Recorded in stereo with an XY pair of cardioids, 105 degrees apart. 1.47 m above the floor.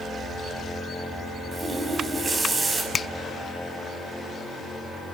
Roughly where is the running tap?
Ahead right.